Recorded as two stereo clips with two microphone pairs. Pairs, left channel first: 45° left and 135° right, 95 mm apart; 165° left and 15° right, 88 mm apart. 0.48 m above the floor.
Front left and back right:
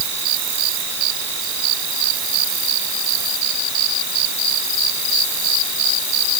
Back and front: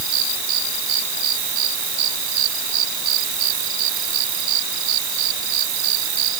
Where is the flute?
No flute in this recording.